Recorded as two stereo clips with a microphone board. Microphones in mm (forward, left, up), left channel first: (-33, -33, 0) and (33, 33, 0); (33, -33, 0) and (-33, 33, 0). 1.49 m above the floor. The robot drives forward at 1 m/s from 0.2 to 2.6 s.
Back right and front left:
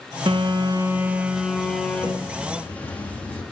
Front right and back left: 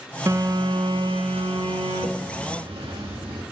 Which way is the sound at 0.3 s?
75° left.